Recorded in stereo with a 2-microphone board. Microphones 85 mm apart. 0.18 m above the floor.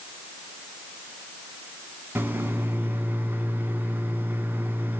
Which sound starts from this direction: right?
A microwave, at 2.1 s.